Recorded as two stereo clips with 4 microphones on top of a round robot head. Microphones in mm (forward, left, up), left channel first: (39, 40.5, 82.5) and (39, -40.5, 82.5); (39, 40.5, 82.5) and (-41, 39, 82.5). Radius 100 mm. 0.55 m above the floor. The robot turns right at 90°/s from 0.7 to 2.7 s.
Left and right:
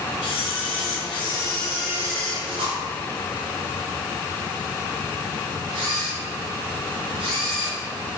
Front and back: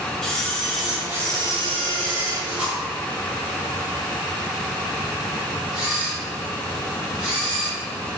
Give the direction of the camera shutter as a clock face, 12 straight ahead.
9 o'clock.